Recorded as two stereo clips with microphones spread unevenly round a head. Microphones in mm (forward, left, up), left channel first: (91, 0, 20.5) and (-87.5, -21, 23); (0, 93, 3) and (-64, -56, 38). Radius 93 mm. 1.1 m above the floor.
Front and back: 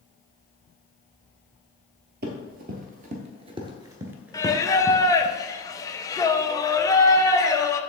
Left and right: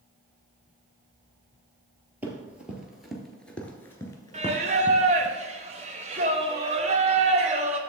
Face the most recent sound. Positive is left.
turn(degrees=-65)